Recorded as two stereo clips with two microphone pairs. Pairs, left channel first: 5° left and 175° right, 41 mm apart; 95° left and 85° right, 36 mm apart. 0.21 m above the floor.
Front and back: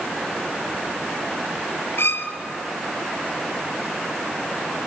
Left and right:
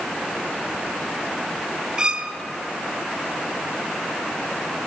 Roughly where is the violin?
Ahead.